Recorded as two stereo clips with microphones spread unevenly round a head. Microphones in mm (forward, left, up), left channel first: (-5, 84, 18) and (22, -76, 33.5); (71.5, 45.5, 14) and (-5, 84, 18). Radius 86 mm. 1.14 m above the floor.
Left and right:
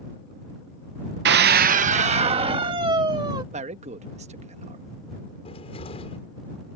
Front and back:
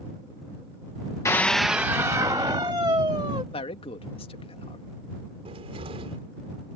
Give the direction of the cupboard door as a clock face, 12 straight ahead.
7 o'clock.